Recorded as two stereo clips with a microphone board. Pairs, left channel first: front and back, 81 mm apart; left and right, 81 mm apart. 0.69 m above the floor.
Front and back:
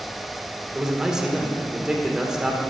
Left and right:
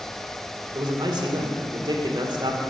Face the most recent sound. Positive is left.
turn(degrees=-100)